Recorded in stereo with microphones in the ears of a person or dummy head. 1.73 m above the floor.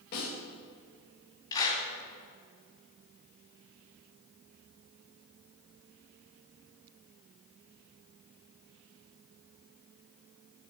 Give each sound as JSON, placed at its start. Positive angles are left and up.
{"t": 0.1, "sound": "a snare drum", "side_deg": 55, "distance_m": 5.0}
{"t": 1.5, "sound": "a clap", "side_deg": 20, "distance_m": 3.5}